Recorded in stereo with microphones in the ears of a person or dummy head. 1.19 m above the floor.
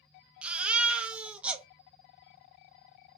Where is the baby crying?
5° right (ahead or behind), 0.5 m.